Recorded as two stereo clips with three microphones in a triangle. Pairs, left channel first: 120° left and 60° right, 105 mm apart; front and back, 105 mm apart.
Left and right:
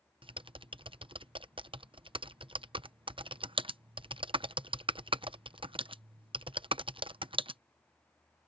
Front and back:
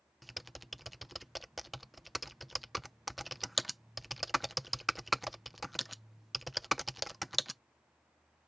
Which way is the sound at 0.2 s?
90° right.